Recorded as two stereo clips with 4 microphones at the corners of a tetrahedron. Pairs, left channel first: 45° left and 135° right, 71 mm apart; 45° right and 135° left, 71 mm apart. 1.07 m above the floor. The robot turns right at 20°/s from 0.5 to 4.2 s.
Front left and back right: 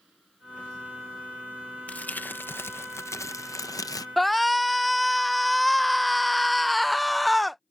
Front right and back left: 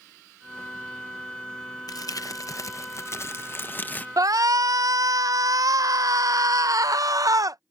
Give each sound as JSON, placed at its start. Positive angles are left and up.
{"t": 1.9, "sound": "crumpling", "azimuth_deg": -25}
{"t": 4.2, "sound": "a shout", "azimuth_deg": 135}